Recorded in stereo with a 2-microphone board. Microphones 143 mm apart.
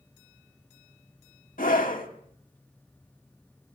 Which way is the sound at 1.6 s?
70° left (ahead or behind).